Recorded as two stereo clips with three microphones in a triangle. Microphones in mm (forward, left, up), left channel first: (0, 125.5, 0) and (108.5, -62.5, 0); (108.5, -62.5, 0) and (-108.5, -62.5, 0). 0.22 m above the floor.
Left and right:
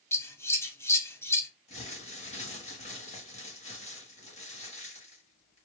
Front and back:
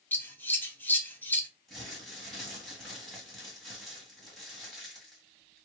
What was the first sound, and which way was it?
Scissors, 65° left.